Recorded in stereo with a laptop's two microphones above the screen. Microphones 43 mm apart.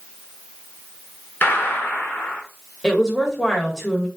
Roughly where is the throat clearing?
No throat clearing in this recording.